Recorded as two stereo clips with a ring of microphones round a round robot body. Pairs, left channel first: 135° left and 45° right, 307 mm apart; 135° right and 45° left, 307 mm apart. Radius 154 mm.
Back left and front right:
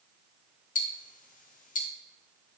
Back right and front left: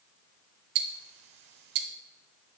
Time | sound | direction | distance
0.8 | ticking | 70° left | 0.8 m